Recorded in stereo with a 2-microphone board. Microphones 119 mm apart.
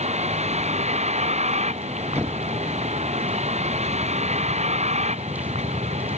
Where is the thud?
20° right (ahead or behind).